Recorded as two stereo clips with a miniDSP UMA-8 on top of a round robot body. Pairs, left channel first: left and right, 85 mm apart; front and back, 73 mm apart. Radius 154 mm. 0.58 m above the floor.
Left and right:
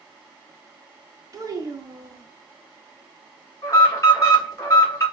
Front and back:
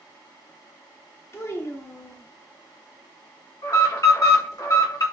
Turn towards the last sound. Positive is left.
turn(degrees=30)